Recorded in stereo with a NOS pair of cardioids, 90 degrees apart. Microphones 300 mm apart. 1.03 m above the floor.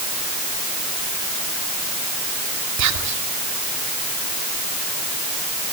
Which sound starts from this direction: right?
Whispering, at 2.8 s.